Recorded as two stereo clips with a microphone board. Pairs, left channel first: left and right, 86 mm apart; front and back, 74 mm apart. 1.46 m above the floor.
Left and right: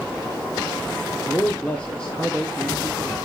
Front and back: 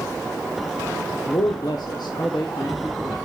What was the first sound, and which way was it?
A man speaking, 25° left.